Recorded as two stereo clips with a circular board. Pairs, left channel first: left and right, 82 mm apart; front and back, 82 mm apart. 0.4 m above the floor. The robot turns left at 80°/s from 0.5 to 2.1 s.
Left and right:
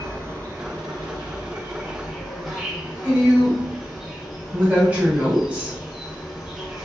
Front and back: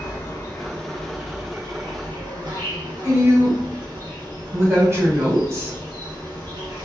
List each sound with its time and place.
0.0 s an insect: 45° right, 0.7 m; by 6.9 s 175° right, 0.7 m
3.0 s a woman speaking: 150° right, 1.2 m